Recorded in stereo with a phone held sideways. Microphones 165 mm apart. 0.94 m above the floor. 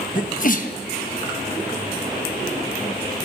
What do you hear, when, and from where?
0.1 s a sneeze: 55° left (ahead or behind), 1.1 m